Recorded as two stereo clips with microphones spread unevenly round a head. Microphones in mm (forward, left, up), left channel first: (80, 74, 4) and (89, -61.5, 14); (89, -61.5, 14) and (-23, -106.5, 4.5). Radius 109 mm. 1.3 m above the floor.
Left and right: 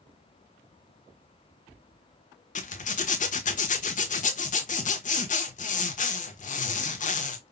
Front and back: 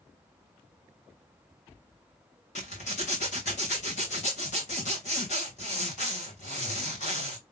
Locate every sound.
2.5 s a zipper: 75° left, 1.2 m